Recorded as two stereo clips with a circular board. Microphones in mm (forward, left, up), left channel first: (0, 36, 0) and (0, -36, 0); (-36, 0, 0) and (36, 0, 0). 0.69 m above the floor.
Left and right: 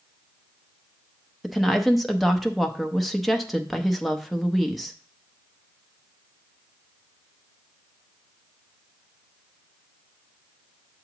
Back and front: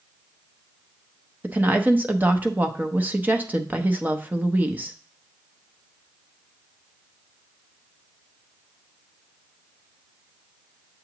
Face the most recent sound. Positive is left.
turn(degrees=0)